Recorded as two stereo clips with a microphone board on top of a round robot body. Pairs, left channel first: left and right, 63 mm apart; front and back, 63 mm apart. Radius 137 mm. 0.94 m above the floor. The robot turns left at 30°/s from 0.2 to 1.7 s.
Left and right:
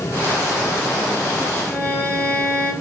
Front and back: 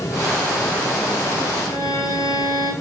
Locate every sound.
1.7 s a violin: 30° left, 5 m